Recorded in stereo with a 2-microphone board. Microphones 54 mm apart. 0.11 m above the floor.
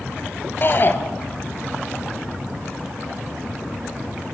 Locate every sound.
0.6 s a shout: 40° left (ahead or behind), 1.6 m